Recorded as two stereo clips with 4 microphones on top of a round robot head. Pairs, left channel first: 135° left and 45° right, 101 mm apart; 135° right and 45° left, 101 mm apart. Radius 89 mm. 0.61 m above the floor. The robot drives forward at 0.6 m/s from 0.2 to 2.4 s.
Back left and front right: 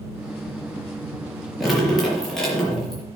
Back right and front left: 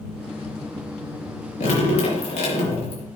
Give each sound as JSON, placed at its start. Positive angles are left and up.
{"t": 1.6, "sound": "dripping", "azimuth_deg": -135, "distance_m": 4.5}